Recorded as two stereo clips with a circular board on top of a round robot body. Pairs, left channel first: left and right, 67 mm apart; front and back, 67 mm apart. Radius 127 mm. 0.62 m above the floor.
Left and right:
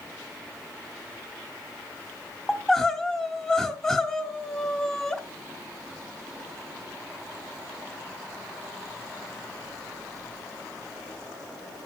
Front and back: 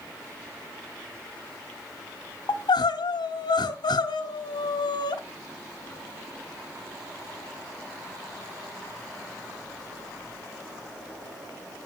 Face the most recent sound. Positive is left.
turn(degrees=10)